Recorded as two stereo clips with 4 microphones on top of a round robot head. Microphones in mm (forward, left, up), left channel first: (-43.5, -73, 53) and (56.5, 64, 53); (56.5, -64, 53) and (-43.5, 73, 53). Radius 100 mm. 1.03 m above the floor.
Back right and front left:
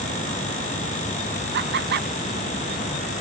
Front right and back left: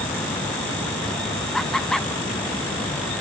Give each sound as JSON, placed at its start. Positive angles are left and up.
{"t": 1.5, "sound": "laughter", "azimuth_deg": 35, "distance_m": 1.6}